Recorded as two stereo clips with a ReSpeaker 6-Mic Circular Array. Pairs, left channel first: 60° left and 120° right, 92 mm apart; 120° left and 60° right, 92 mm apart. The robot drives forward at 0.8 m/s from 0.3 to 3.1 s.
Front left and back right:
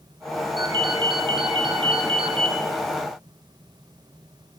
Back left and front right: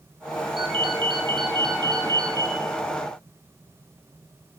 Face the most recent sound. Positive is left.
turn(degrees=-115)